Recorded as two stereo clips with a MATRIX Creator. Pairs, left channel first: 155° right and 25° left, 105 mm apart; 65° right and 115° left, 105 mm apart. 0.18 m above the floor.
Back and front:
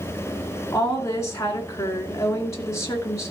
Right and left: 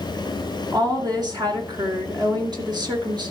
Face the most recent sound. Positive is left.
turn(degrees=150)